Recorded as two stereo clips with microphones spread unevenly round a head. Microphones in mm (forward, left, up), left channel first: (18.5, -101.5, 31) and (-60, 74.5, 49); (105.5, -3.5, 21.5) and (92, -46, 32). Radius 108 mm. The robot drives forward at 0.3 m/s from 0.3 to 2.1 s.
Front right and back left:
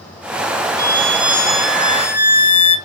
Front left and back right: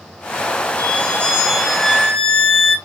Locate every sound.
0.8 s a violin: 100° left, 1.0 m; by 2.8 s 130° left, 1.1 m